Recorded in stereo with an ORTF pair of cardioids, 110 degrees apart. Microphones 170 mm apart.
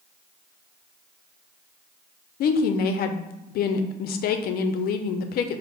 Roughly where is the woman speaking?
Ahead left.